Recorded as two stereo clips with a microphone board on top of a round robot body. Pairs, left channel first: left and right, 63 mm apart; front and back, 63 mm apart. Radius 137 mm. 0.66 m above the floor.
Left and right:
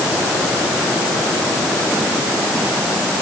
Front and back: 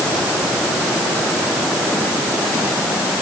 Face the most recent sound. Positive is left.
No sound to turn to.